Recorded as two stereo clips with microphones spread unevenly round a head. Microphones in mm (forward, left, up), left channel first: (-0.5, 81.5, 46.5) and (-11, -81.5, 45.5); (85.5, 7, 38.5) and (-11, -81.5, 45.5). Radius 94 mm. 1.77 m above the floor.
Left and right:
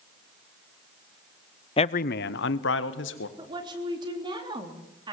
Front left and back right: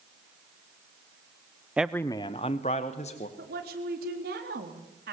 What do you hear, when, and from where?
1.8 s a man speaking: 145° left, 0.6 m; by 3.3 s 95° left, 2.0 m
3.4 s a woman speaking: 160° right, 3.5 m